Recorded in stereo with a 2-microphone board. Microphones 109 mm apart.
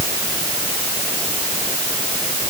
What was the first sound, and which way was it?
Only background noise.